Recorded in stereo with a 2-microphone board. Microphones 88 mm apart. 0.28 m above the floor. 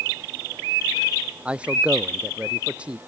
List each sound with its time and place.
1.4 s a man speaking: 15° right (ahead or behind)